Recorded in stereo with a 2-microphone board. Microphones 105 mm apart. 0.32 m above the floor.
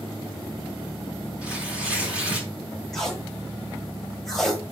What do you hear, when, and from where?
1.4 s tearing paper: 10° right (ahead or behind), 3 m
2.9 s tape being pulled: centre (ahead or behind), 1.7 m